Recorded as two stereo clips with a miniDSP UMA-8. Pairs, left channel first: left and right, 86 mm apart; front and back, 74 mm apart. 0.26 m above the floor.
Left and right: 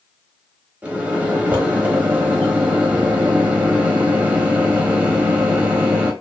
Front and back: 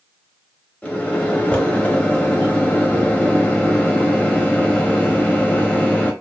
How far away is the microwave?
About 0.8 m.